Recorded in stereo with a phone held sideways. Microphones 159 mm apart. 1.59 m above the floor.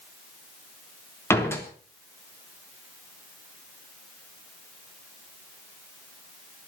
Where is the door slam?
15° left (ahead or behind), 3 m.